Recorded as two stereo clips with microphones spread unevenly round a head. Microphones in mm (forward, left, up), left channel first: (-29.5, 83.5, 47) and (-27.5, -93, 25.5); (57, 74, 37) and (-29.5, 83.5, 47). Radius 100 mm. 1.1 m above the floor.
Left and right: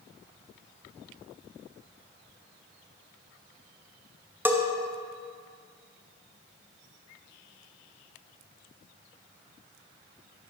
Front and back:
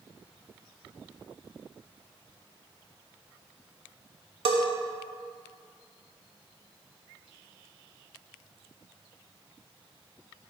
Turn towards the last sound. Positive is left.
turn(degrees=-165)